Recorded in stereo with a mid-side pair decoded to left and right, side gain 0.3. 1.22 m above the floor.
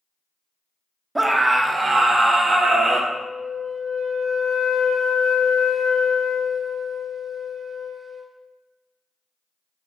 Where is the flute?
60° left, 1.7 m.